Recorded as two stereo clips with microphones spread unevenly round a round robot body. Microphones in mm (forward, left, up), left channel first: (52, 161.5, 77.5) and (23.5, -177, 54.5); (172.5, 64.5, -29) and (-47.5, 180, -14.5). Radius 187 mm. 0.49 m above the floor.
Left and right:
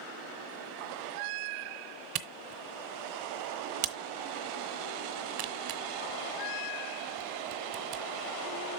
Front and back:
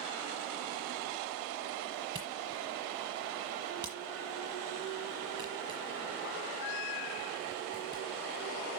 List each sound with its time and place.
2.1 s a camera shutter: 130° right, 1.0 m